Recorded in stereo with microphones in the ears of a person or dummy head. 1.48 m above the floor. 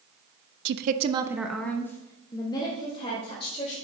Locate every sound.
0.7 s a woman speaking: 60° right (ahead or behind), 0.5 m; by 3.8 s 30° left (ahead or behind), 2 m